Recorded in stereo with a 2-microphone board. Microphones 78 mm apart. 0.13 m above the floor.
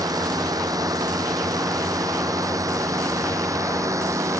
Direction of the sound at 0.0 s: 55° right (ahead or behind).